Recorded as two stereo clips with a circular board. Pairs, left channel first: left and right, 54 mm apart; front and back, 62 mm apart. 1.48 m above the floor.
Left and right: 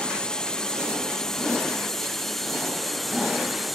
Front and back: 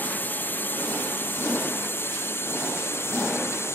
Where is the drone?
30° left; by 3.8 s straight ahead.